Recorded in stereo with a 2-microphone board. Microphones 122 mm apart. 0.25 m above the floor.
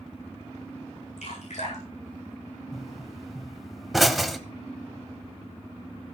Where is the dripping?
75° left (ahead or behind), 8.5 m.